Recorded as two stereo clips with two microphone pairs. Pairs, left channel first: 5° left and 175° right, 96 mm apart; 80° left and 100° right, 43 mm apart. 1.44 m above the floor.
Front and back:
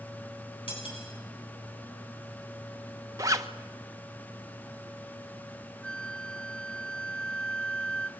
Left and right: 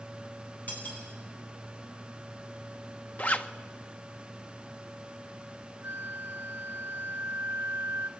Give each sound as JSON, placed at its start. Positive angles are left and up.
{"t": 0.7, "sound": "cutlery clinking", "azimuth_deg": 25, "distance_m": 9.5}
{"t": 3.2, "sound": "a zipper", "azimuth_deg": 125, "distance_m": 1.3}
{"t": 5.8, "sound": "a flute", "azimuth_deg": -75, "distance_m": 0.7}